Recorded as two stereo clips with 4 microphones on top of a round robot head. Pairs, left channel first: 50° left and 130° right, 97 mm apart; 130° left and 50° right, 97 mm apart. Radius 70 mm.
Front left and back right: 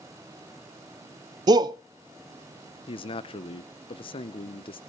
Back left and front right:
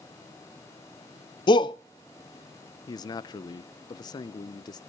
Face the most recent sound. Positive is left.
turn(degrees=80)